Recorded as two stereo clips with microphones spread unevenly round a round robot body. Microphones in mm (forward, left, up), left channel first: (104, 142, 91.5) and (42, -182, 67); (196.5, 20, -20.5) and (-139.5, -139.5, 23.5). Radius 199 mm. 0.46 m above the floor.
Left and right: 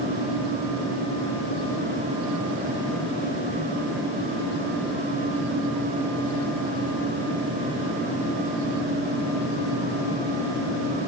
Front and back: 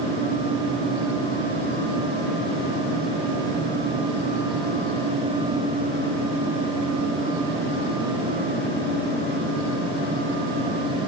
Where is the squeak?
I don't hear a squeak.